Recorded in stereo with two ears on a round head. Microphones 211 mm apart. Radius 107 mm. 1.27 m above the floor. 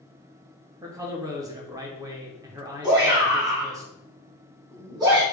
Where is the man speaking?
15° right (ahead or behind), 0.6 m.